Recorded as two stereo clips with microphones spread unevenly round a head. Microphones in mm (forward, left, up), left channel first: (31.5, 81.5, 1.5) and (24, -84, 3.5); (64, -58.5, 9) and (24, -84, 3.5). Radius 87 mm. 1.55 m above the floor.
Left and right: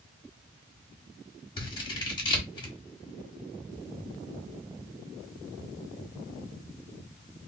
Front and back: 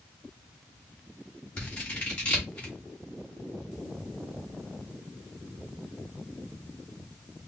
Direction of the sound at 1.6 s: 50° left.